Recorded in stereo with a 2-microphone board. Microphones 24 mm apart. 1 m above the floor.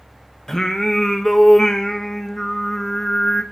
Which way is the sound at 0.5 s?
20° left (ahead or behind).